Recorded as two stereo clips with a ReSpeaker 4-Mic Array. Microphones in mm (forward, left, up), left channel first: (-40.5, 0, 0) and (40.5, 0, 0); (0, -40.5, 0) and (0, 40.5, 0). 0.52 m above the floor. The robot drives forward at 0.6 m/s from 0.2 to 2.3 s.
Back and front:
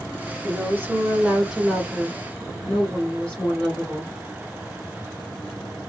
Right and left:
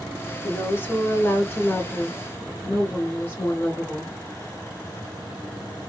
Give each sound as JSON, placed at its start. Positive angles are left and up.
{"t": 0.4, "sound": "a woman speaking", "azimuth_deg": -35, "distance_m": 1.5}